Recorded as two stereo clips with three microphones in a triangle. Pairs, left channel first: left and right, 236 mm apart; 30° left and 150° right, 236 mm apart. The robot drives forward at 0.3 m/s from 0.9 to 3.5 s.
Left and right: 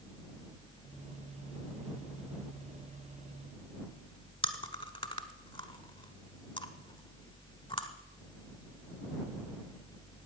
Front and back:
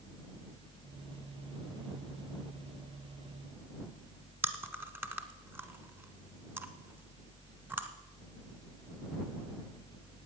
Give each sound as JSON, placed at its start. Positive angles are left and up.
{"t": 4.4, "sound": "chewing", "azimuth_deg": 135, "distance_m": 1.2}